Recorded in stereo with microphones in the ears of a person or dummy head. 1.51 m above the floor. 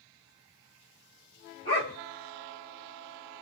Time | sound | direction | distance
1.6 | a dog barking | 25° left (ahead or behind) | 1.9 m